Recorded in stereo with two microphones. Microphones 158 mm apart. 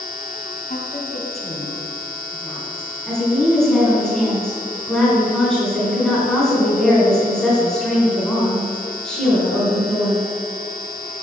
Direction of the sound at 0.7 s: 55° left (ahead or behind).